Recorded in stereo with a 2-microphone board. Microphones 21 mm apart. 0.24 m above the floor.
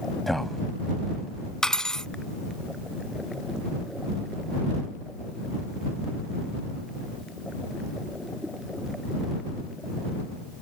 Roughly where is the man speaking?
Centre.